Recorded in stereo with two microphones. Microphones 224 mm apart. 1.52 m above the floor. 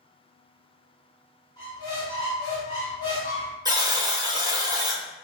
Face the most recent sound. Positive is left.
turn(degrees=-15)  # may be behind; listen again after turning